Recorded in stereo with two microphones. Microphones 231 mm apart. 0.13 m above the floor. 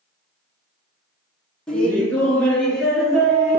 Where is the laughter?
5° left (ahead or behind), 1.2 m.